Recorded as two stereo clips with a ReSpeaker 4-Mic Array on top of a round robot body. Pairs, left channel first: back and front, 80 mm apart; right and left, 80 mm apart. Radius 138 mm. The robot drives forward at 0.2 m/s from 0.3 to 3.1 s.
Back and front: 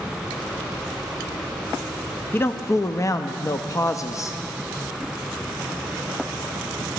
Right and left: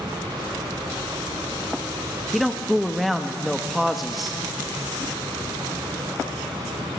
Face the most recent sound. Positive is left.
turn(degrees=180)